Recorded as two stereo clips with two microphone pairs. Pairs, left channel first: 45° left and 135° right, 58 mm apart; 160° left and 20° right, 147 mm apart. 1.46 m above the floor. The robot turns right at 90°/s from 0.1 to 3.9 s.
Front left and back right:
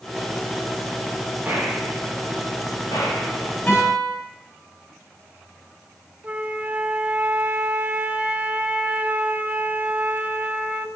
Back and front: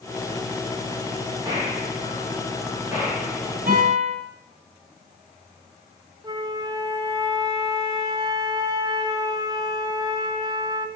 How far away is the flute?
About 0.5 m.